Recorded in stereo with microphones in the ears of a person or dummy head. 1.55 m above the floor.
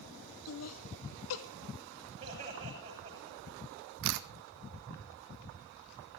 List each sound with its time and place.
0.5 s laughter: 75° left (ahead or behind), 1.6 m
2.2 s laughter: 25° right (ahead or behind), 7.5 m
4.0 s a camera shutter: 70° right (ahead or behind), 1.1 m